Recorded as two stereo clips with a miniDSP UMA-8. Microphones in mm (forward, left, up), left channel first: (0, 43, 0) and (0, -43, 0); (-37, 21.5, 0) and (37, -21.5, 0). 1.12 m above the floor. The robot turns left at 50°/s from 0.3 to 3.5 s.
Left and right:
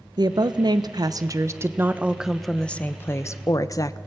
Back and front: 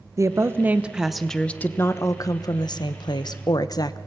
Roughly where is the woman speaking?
Right.